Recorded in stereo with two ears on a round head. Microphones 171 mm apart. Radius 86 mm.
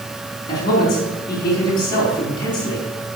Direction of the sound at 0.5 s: 20° left (ahead or behind).